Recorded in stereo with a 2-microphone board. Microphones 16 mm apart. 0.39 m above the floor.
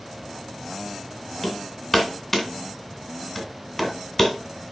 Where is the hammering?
10° left (ahead or behind), 2.0 m.